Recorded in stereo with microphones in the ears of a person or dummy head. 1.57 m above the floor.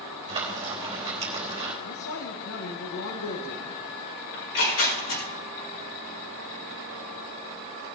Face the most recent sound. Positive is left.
turn(degrees=85)